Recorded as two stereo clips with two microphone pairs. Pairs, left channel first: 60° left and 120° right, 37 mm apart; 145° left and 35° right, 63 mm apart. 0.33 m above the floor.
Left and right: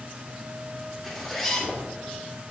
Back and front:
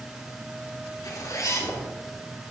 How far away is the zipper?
About 3.5 m.